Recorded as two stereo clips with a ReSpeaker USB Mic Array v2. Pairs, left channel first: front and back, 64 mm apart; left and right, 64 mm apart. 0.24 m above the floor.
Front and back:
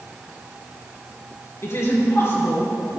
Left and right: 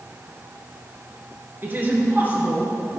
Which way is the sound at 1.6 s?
35° right.